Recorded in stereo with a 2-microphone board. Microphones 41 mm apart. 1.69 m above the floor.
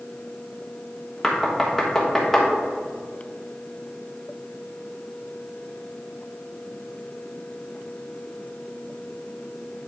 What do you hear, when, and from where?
1.2 s knocking: 10° left (ahead or behind), 1.2 m